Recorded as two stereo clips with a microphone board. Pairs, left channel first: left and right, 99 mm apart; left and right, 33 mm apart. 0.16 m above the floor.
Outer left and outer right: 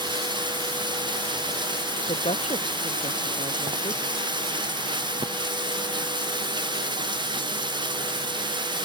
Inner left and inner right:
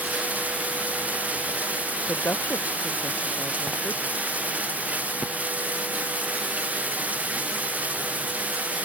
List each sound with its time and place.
0.0 s running water: 45° right (ahead or behind)
2.1 s a woman speaking: 85° left